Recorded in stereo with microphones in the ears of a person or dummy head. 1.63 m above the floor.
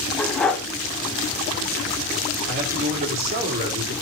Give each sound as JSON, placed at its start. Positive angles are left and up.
{"t": 0.2, "sound": "a dog barking", "side_deg": 10, "distance_m": 2.5}
{"t": 2.5, "sound": "a man speaking", "side_deg": -50, "distance_m": 4.5}